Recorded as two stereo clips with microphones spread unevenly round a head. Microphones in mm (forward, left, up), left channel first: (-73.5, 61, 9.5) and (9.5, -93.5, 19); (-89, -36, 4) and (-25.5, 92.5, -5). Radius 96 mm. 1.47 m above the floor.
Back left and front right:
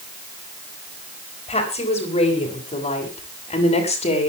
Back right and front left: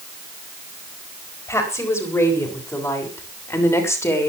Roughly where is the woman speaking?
Behind.